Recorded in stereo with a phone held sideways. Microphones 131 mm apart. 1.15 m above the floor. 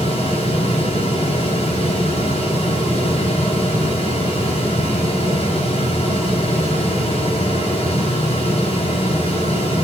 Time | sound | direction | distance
0.0 | a fan | 50° left (ahead or behind) | 4 m